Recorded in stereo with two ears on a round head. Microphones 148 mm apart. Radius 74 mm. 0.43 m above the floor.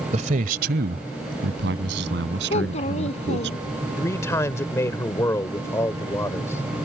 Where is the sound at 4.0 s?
15° left (ahead or behind).